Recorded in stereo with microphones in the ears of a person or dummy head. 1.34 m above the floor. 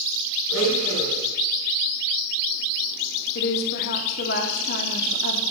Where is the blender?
80° left, 8 m.